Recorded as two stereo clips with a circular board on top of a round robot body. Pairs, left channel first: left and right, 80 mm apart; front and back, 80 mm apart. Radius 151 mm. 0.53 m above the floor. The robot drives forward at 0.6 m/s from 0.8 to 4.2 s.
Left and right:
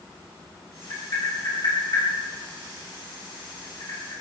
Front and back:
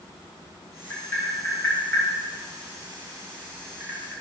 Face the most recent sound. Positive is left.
turn(degrees=95)